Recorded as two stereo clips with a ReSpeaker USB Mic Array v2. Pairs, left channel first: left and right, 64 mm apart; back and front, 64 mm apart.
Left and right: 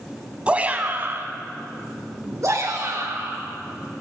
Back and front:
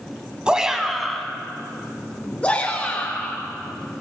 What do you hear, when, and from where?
0.5 s a shout: 50° right, 1.3 m; by 3.4 s 115° right, 3.5 m